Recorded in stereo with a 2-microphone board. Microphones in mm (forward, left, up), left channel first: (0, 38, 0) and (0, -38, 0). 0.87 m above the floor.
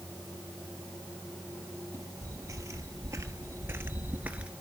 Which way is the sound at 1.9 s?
45° right (ahead or behind).